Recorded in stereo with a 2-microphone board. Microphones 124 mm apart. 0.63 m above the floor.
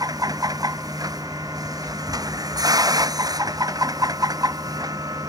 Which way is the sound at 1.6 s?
15° left (ahead or behind).